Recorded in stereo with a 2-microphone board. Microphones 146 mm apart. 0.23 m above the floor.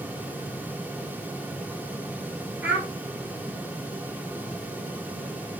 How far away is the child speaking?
About 2 m.